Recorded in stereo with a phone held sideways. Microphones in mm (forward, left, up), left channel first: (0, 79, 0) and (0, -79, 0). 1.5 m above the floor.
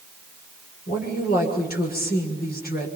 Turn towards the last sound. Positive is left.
turn(degrees=75)  # may be behind; listen again after turning